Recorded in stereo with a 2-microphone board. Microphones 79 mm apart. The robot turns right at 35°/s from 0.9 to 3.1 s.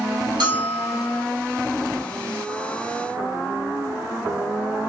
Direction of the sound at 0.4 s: 75° right (ahead or behind).